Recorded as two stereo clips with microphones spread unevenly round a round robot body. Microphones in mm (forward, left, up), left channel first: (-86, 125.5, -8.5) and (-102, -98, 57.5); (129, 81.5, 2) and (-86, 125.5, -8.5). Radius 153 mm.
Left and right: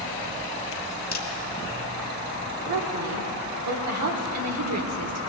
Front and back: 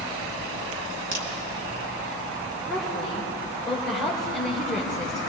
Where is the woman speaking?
100° right, 2 m.